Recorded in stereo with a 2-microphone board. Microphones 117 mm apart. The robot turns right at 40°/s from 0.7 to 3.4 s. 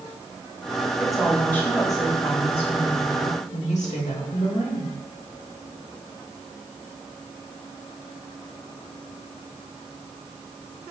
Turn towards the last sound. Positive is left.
turn(degrees=90)